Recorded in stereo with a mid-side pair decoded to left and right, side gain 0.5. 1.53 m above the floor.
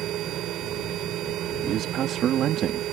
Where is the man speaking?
60° right.